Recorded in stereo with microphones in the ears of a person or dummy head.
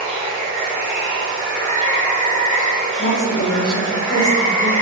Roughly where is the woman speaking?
Left.